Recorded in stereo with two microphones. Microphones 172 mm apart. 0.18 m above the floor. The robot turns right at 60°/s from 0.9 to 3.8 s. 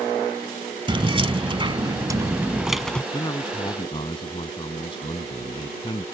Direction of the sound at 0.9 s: 115° right.